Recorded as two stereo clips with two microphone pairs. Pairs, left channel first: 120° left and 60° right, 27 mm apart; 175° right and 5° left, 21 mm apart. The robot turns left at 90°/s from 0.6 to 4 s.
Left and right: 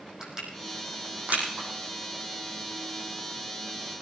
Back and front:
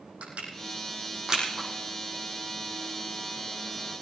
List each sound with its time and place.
0.2 s crushing: 5° left, 5 m; by 1.7 s 95° right, 5 m